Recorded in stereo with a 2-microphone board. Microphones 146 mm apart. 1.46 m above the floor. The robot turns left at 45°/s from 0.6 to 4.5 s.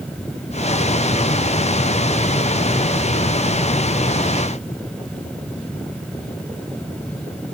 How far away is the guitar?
I don't hear a guitar.